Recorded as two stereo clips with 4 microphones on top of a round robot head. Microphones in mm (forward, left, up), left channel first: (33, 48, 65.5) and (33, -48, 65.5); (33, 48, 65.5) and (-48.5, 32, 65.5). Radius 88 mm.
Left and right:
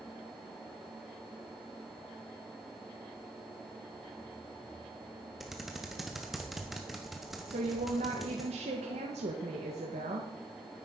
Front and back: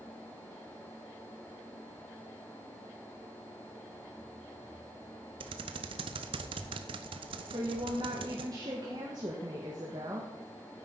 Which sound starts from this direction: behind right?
A woman speaking, at 7.5 s.